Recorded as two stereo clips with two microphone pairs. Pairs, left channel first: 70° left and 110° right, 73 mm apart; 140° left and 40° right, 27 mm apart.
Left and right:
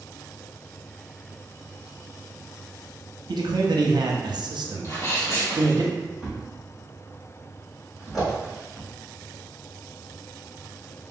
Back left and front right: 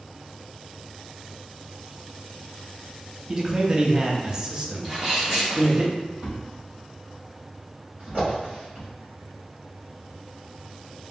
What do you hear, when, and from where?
3.3 s a man speaking: 105° right, 0.6 m
4.8 s a sneeze: 30° left, 1.9 m
6.2 s a thud: 30° right, 1.8 m